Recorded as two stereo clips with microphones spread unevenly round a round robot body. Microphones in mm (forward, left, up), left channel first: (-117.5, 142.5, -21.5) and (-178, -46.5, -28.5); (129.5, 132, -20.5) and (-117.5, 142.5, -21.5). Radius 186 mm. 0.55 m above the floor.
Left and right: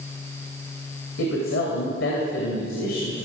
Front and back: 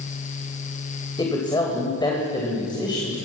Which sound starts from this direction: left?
A woman speaking, at 1.2 s.